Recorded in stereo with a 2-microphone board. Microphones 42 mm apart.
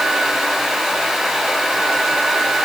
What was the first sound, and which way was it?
Only background noise.